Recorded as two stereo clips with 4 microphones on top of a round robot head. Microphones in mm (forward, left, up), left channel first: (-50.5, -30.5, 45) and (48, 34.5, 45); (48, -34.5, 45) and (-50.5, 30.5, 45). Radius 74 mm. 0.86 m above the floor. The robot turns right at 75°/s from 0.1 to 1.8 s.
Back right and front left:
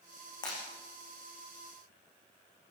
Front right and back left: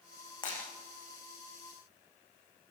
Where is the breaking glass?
90° right, 9.5 m; by 0.6 s 75° right, 9.5 m.